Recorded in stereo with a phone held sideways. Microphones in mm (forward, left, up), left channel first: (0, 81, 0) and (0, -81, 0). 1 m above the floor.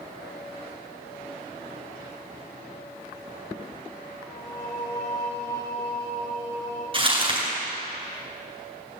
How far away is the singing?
About 5 m.